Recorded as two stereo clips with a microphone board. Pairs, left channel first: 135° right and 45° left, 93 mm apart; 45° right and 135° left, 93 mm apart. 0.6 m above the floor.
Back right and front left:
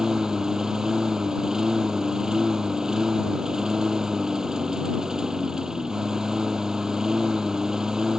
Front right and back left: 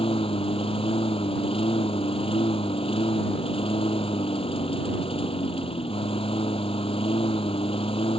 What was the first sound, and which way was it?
A lawn mower, 40° right.